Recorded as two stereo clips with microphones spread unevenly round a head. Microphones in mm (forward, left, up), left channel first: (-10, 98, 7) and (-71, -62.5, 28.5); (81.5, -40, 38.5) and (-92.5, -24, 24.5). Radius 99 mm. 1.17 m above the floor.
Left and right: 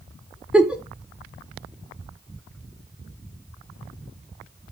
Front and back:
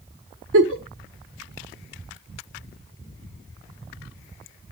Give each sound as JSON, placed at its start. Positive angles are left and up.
{"t": 0.5, "sound": "a giggle", "azimuth_deg": 170, "distance_m": 1.3}